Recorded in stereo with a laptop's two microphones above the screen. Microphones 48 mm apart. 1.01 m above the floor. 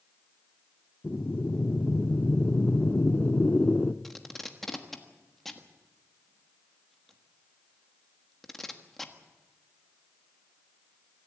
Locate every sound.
1.0 s breathing: 30° left (ahead or behind), 0.6 m
4.0 s tape being pulled: 5° left (ahead or behind), 1.4 m